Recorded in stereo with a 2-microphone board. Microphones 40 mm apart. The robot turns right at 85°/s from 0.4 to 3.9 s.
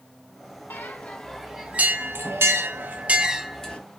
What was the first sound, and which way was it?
A bell, 60° left (ahead or behind).